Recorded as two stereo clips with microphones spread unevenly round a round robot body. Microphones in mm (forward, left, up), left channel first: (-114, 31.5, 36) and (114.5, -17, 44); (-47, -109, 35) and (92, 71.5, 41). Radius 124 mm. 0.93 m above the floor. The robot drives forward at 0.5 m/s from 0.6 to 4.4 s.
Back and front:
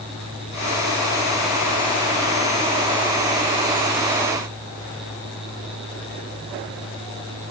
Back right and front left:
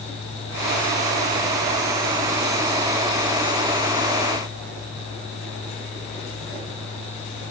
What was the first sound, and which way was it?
Only background noise.